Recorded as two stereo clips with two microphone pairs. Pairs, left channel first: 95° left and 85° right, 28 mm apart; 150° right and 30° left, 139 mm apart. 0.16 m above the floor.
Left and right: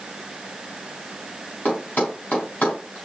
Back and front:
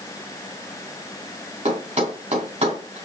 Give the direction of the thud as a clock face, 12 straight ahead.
10 o'clock.